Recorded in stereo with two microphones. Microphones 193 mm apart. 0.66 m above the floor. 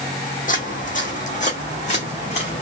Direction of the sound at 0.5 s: 50° left (ahead or behind).